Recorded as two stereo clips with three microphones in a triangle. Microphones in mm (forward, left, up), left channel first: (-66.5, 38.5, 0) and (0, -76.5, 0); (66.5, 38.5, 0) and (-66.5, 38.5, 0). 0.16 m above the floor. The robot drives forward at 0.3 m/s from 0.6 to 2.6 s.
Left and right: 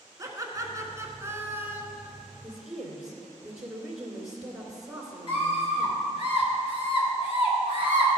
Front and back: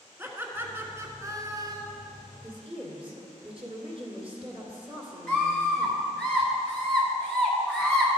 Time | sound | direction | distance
0.2 | laughter | 115° right | 1.4 m
2.4 | a woman speaking | 145° right | 2 m
5.3 | a scream | 80° left | 3 m